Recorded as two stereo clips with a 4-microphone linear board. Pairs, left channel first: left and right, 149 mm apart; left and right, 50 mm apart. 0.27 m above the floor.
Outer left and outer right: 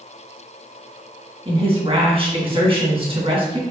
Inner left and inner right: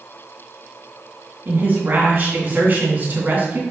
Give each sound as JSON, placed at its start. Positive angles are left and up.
{"t": 1.4, "sound": "a woman speaking", "side_deg": -40, "distance_m": 3.0}